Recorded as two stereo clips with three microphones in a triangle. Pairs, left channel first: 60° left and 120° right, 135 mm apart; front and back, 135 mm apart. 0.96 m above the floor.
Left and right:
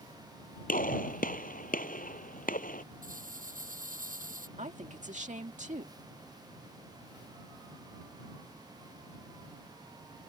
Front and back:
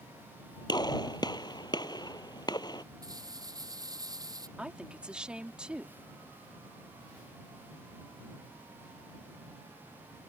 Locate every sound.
0.7 s a gunshot: 60° left
3.0 s a rattle: 120° right
4.6 s a woman speaking: 100° right